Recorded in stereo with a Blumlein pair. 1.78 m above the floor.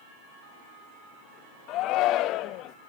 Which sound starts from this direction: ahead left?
A shout, at 1.7 s.